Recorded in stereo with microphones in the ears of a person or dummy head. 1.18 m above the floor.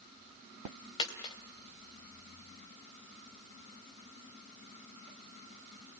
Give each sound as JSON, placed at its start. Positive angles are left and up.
{"t": 1.0, "sound": "a dropped coin", "side_deg": 25, "distance_m": 2.5}